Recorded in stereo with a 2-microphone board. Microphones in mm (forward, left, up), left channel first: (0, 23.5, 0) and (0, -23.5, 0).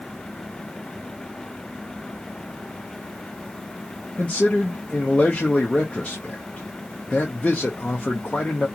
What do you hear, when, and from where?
4.2 s a man speaking: 25° left (ahead or behind), 0.7 m